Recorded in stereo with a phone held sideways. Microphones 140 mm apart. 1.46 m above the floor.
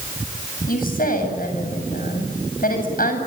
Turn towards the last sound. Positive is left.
turn(degrees=85)